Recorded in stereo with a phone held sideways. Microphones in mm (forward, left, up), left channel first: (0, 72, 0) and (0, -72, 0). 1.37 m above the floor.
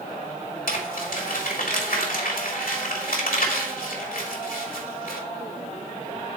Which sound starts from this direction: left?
Crumpling, at 0.7 s.